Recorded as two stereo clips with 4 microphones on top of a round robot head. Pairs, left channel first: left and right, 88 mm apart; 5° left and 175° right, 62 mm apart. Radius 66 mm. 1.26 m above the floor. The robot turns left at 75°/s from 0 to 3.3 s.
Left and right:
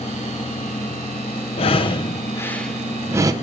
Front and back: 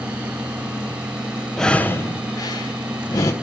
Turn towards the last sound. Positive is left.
turn(degrees=-40)